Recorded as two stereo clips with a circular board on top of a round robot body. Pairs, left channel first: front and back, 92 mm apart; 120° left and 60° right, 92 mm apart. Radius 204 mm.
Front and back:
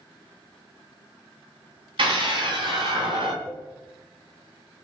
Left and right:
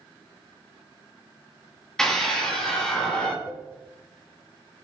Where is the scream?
155° right, 10 m; by 3.4 s 160° right, 9.5 m.